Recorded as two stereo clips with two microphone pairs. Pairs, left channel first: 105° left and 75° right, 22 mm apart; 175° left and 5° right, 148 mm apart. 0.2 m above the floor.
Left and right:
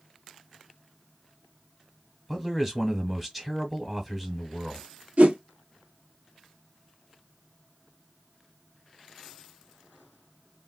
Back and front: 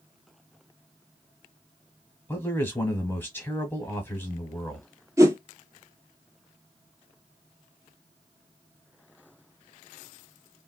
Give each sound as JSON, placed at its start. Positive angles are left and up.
{"t": 2.3, "sound": "a man speaking", "azimuth_deg": -145, "distance_m": 1.2}
{"t": 5.2, "sound": "a whoosh", "azimuth_deg": -75, "distance_m": 0.6}